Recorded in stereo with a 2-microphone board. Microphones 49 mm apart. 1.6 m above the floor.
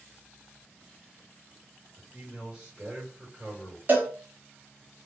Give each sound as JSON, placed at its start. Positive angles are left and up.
{"t": 2.0, "sound": "a man speaking", "side_deg": -10, "distance_m": 1.5}
{"t": 3.9, "sound": "a cowbell", "side_deg": -35, "distance_m": 1.0}